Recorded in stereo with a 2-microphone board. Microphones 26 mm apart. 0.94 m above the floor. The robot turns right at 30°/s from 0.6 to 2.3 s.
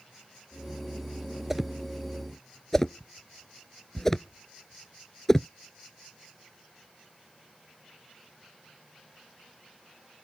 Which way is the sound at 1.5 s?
5° right (ahead or behind).